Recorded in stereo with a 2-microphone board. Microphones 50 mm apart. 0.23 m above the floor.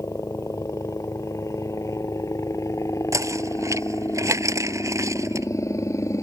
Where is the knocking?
75° right (ahead or behind).